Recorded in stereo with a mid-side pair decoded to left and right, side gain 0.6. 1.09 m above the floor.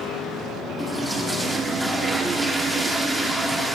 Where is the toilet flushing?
5° right, 1.6 m.